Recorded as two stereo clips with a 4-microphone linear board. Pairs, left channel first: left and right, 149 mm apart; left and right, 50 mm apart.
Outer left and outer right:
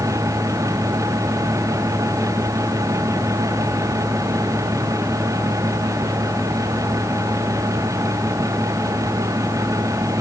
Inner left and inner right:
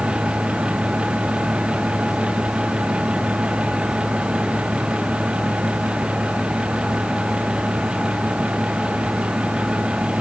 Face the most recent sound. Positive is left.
No sound to turn to.